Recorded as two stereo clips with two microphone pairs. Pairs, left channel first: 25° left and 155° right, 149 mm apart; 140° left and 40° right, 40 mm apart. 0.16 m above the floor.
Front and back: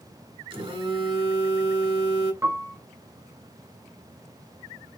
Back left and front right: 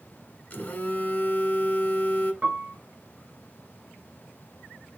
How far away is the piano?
About 0.9 m.